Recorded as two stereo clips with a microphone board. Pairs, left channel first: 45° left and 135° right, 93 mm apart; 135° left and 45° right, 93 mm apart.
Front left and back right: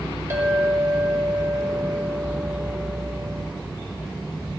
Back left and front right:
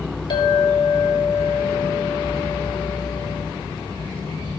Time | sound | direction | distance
0.3 | a clink | 165° left | 1.7 m